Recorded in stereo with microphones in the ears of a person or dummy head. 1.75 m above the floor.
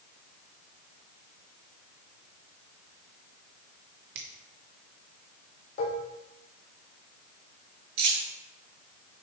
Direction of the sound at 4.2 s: 60° right (ahead or behind).